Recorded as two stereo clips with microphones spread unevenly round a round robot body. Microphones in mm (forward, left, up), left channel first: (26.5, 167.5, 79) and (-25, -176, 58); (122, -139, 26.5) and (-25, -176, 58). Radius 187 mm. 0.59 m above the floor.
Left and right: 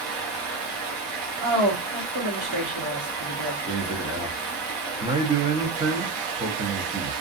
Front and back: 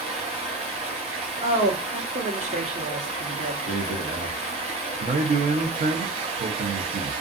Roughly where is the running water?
Behind right.